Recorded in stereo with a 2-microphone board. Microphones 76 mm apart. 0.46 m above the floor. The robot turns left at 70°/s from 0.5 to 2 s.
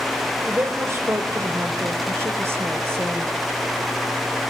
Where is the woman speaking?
25° right, 1.9 m; by 3.3 s 130° right, 1.9 m.